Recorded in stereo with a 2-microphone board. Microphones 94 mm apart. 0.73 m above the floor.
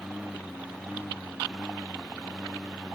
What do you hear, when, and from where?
0.0 s a lawn mower: 5° right (ahead or behind); by 3.0 s 10° right (ahead or behind)